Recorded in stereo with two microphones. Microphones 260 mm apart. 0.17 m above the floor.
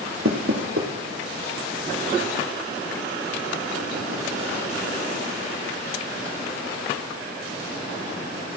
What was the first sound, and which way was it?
Knocking, 55° right (ahead or behind).